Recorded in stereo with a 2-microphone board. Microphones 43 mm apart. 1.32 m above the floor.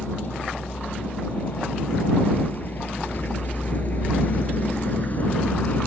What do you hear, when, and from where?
0.0 s a vehicle: 45° left (ahead or behind); by 5.9 s 40° left (ahead or behind)